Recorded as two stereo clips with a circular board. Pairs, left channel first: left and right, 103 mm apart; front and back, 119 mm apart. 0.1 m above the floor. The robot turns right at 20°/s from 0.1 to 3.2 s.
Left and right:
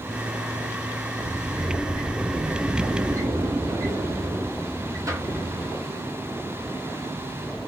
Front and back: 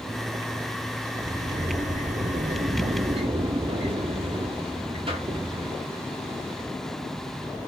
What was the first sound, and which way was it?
A sliding door, 175° left.